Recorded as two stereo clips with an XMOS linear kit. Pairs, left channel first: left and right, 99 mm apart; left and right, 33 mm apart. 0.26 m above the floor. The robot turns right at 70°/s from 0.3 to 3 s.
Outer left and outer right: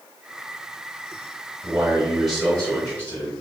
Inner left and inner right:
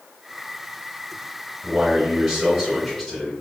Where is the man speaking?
20° right (ahead or behind), 1.2 m; by 3.3 s 15° left (ahead or behind), 1.2 m.